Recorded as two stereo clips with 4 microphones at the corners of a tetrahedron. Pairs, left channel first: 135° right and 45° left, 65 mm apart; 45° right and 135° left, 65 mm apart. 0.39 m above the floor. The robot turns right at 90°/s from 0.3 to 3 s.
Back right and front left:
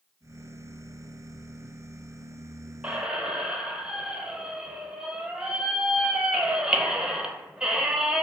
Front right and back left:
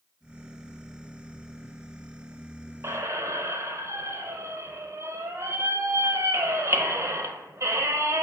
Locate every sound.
2.8 s a squeak: 105° left, 0.5 m; by 8.2 s 120° left, 0.5 m